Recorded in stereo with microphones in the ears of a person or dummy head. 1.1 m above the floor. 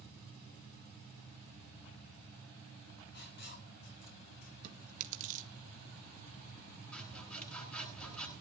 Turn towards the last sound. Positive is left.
turn(degrees=5)  # may be behind; listen again after turning